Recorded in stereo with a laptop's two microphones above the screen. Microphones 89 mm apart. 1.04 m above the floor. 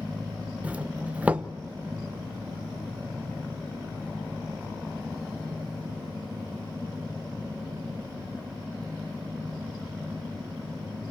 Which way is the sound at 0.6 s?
15° right (ahead or behind).